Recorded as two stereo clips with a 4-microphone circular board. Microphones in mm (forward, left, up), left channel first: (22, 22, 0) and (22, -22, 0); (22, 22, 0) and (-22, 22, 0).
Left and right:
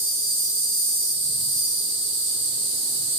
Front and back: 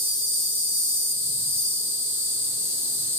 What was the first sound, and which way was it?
An insect, 170° left.